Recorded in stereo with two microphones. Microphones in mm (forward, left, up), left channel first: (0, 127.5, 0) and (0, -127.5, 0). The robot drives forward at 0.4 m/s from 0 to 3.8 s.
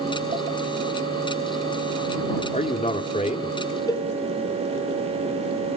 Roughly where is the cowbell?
Centre.